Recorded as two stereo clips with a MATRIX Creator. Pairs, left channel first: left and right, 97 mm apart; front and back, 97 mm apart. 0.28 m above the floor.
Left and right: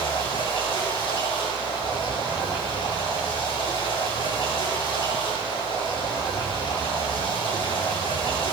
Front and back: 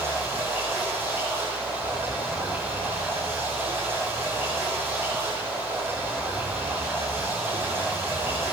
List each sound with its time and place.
0.0 s running water: 115° left, 8.5 m